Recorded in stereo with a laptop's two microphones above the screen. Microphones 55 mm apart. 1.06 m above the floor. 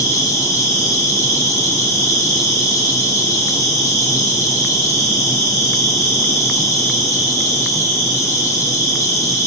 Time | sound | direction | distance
0.0 | an insect | 75° left (ahead or behind) | 1.7 m